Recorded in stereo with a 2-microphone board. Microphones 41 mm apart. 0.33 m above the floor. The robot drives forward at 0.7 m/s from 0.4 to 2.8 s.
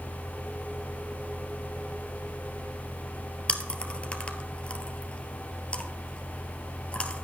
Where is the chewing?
30° left (ahead or behind), 1.1 m.